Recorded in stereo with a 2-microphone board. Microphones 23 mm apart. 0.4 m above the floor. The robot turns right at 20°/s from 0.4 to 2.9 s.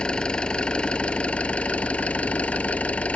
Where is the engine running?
40° left; by 3.2 s 90° left.